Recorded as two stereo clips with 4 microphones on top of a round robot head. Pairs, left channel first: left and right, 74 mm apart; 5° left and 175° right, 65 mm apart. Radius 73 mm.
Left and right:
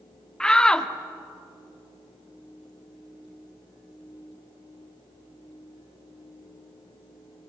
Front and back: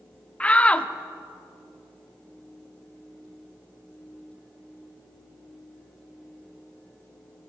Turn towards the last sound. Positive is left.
turn(degrees=30)